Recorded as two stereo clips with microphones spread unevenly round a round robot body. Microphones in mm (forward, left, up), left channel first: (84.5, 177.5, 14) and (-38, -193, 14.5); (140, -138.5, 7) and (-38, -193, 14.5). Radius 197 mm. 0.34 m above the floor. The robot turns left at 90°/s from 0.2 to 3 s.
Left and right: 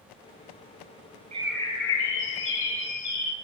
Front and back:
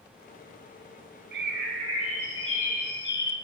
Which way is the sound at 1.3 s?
Straight behind.